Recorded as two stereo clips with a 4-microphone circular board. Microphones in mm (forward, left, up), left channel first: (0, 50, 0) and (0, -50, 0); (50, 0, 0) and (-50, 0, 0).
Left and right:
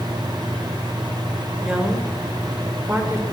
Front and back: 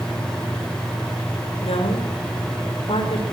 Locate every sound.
1.6 s a woman speaking: 5° right, 5.5 m; by 3.2 s 20° right, 5 m